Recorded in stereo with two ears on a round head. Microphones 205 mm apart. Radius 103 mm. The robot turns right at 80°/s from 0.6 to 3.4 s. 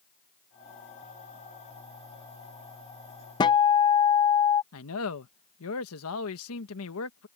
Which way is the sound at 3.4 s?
20° left (ahead or behind).